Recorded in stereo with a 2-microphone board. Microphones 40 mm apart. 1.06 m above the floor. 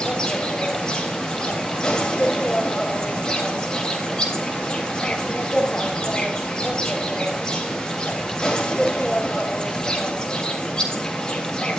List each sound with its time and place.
0.0 s an insect: 20° left (ahead or behind), 3.5 m